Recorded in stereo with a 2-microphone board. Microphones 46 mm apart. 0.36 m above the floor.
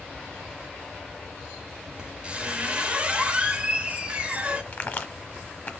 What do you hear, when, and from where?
2.0 s a squeak: 30° right (ahead or behind), 0.7 m
4.7 s a crack: 40° left (ahead or behind), 1.0 m